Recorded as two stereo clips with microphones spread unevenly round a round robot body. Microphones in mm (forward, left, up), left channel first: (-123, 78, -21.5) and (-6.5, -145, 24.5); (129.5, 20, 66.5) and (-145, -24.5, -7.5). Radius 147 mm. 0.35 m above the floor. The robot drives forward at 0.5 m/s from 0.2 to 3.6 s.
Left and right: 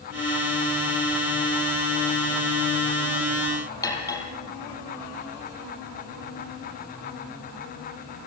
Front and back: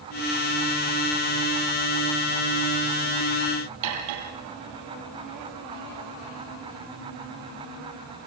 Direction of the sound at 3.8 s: 165° right.